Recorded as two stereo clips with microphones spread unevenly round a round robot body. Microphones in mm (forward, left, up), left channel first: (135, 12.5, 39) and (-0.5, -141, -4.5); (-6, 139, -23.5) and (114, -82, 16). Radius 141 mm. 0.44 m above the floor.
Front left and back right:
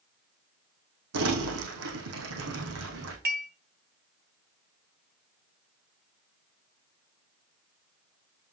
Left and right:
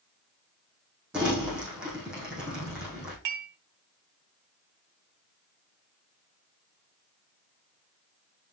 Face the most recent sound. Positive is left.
turn(degrees=-95)